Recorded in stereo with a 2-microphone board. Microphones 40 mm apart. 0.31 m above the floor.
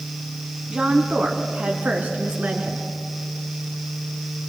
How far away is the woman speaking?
About 2.5 m.